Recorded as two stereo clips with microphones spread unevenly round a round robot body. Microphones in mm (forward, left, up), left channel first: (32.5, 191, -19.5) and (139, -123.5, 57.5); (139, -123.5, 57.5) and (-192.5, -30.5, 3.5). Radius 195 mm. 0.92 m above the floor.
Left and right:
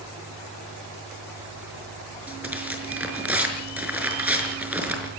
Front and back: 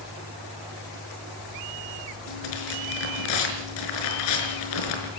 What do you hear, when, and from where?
2.3 s tearing paper: 10° left, 5.5 m